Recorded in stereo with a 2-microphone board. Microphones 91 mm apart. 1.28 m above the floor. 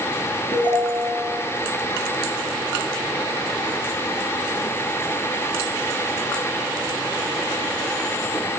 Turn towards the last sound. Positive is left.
turn(degrees=70)  # may be behind; listen again after turning